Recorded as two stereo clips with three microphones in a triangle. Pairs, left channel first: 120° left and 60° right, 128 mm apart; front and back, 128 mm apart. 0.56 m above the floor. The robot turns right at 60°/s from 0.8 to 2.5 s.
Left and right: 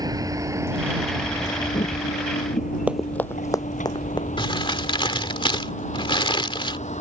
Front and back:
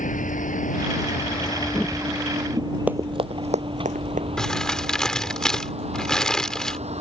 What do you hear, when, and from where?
0.0 s a vehicle: straight ahead; by 7.0 s 145° left
2.9 s running footsteps: 120° right; by 4.3 s 175° left
4.4 s crumpling: 85° left